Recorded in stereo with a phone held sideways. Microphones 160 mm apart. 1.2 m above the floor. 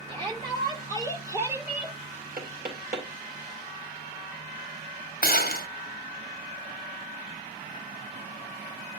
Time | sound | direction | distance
0.1 | a shout | 30° right (ahead or behind) | 4 m
2.4 | knocking | 65° right (ahead or behind) | 3 m
5.2 | a gunshot | 65° left (ahead or behind) | 1.0 m